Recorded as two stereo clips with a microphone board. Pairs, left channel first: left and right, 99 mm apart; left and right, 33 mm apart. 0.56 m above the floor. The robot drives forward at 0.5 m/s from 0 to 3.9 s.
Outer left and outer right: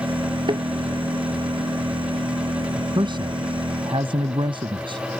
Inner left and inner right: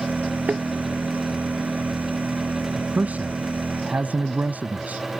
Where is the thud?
50° right (ahead or behind).